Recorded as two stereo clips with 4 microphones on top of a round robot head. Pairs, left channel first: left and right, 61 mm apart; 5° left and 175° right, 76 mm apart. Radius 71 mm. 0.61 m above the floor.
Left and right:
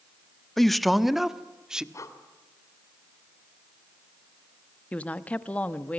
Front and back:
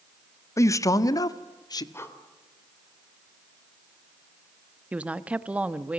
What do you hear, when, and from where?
0.6 s a man speaking: 5° left, 1.2 m; by 1.8 s 15° right, 1.8 m
1.9 s breathing: 60° left, 3 m
4.9 s a woman speaking: 130° left, 1.1 m